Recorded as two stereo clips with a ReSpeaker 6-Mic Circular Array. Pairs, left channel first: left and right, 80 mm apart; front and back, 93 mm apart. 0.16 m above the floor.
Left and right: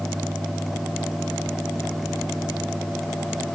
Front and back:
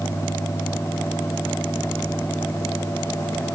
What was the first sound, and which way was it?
Only background noise.